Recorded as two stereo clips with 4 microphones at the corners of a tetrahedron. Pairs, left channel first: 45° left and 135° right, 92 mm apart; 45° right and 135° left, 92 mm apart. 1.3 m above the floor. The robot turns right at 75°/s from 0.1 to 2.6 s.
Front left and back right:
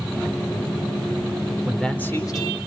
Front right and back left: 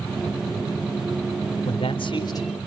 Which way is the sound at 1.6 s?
55° right.